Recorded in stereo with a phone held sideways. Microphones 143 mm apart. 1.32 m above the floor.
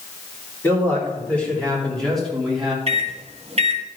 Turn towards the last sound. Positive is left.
turn(degrees=-45)  # may be behind; listen again after turning